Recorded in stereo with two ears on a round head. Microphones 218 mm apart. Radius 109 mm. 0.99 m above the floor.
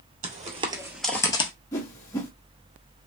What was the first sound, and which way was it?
Footsteps, 30° right (ahead or behind).